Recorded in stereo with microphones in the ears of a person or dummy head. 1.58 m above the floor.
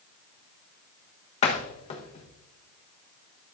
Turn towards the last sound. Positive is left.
turn(degrees=40)  # may be behind; listen again after turning